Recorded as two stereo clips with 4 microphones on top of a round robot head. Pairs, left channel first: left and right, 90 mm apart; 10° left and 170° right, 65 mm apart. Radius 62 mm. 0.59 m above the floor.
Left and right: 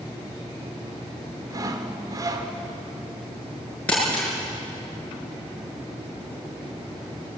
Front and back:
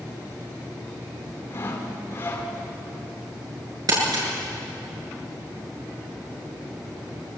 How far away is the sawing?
About 2 m.